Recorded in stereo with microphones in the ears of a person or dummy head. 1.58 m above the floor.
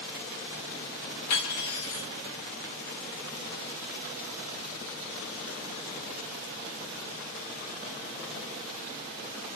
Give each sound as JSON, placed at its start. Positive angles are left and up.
{"t": 1.3, "sound": "cutlery clinking", "side_deg": 55, "distance_m": 1.4}